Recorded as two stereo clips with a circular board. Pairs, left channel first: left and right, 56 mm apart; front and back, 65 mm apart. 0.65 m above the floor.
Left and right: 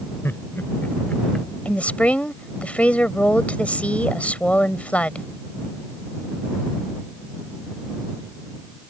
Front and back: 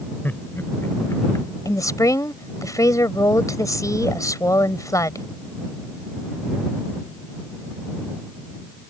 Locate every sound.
0.2 s laughter: 55° left; by 1.5 s 10° left
1.6 s a woman speaking: 25° left